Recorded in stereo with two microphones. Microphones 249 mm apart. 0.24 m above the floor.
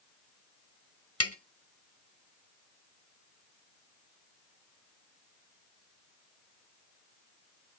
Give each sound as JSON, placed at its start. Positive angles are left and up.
{"t": 1.2, "sound": "tapping", "side_deg": 70, "distance_m": 1.1}